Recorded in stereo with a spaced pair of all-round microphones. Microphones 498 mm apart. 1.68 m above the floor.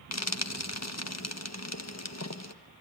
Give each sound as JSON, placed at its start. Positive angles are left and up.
{"t": 0.1, "sound": "frying", "side_deg": 30, "distance_m": 1.4}